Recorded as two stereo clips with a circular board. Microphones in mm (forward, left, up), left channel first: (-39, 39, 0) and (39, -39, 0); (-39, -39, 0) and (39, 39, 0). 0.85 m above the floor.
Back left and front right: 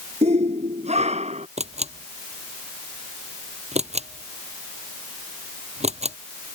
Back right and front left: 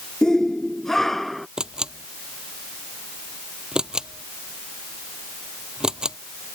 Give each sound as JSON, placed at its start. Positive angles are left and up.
{"t": 0.2, "sound": "a shout", "azimuth_deg": -50}
{"t": 1.6, "sound": "a camera shutter", "azimuth_deg": -40}